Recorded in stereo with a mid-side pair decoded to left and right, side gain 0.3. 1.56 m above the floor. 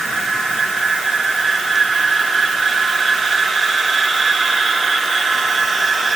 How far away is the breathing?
No breathing in this recording.